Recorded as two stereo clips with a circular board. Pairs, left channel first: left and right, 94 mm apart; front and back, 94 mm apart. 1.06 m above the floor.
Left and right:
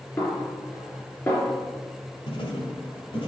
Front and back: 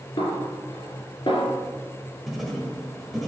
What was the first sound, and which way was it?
A snare drum, 30° left.